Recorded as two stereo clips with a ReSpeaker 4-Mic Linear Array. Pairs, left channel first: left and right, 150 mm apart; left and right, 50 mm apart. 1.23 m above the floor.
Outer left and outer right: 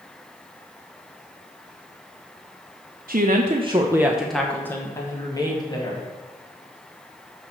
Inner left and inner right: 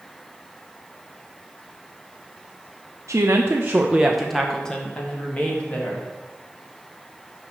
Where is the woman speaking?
70° right (ahead or behind), 0.7 m; by 6.0 s 30° left (ahead or behind), 2.0 m.